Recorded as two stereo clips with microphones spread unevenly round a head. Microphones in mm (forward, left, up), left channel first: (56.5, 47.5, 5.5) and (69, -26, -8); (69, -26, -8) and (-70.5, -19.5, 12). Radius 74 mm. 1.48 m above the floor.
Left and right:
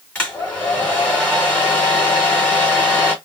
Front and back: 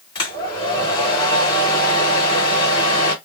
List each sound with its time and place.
0.1 s a hair dryer: 50° left, 1.7 m